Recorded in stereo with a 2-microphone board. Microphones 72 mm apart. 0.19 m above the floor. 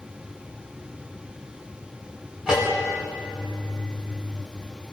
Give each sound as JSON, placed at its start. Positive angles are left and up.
{"t": 2.5, "sound": "a bell", "side_deg": -10, "distance_m": 6.5}